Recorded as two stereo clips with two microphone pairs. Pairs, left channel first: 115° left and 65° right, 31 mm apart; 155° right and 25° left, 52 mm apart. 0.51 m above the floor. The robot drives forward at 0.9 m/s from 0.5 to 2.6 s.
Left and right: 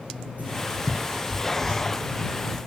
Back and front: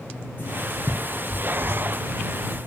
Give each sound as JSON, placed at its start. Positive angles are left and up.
{"t": 0.4, "sound": "writing", "azimuth_deg": -105, "distance_m": 5.0}